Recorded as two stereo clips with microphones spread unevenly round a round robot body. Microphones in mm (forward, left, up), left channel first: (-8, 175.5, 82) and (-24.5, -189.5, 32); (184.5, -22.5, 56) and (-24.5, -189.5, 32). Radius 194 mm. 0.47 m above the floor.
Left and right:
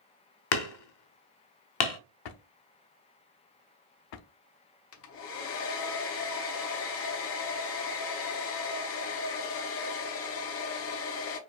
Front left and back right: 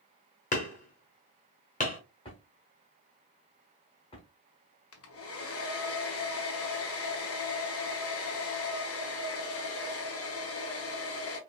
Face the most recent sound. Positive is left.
turn(degrees=40)